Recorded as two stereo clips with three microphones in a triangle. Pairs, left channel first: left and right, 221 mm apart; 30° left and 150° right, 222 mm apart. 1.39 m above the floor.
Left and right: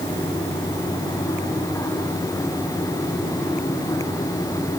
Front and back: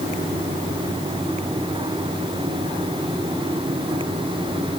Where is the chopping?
No chopping in this recording.